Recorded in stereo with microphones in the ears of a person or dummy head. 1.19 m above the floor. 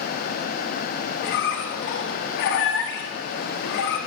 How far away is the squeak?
About 1.0 m.